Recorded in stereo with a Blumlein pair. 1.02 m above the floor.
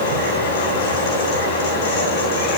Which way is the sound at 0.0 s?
55° left.